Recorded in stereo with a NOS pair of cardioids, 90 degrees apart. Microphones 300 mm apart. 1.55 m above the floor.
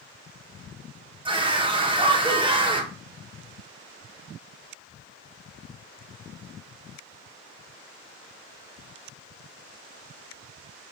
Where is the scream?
15° right, 1.0 m.